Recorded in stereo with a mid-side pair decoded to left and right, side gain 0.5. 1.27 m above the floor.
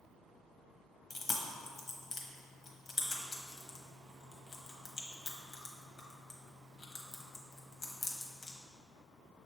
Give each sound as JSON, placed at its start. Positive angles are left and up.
{"t": 1.1, "sound": "chewing", "azimuth_deg": 45, "distance_m": 1.0}